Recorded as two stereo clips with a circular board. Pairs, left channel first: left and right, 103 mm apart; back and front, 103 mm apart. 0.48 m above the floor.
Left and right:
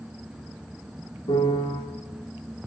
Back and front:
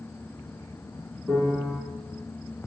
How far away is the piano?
About 1.0 m.